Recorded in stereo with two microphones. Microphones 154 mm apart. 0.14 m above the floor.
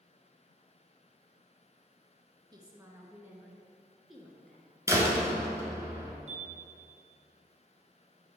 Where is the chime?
50° right (ahead or behind), 1.1 m.